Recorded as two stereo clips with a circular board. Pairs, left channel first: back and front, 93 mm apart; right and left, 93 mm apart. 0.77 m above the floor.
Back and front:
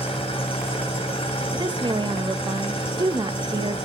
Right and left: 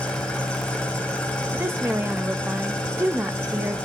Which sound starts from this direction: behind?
An engine running, at 0.0 s.